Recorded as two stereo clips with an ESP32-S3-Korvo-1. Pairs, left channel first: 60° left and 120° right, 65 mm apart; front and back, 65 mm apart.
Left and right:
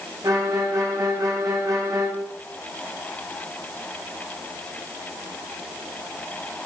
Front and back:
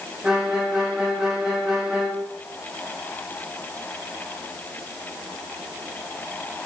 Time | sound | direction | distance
0.2 | a violin | 100° right | 3 m